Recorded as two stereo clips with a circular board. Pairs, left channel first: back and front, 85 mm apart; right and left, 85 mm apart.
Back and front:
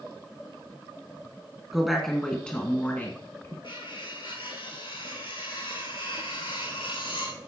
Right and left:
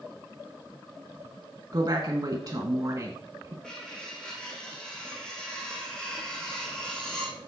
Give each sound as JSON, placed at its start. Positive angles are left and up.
{"t": 1.7, "sound": "a woman speaking", "azimuth_deg": 85, "distance_m": 1.8}
{"t": 3.6, "sound": "cutlery clinking", "azimuth_deg": -170, "distance_m": 5.5}